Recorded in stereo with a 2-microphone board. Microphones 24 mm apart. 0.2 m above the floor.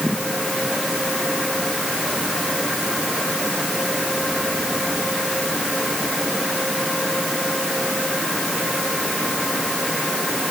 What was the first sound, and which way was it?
Only background noise.